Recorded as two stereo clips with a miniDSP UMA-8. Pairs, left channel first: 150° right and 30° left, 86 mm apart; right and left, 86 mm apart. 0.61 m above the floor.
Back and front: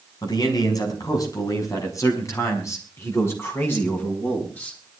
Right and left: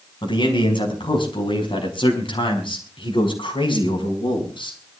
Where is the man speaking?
110° right, 5.5 m; by 4.8 s 80° right, 5.5 m.